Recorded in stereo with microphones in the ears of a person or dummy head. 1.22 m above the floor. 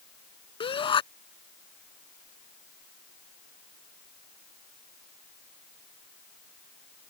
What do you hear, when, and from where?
0.6 s a shout: 25° left (ahead or behind)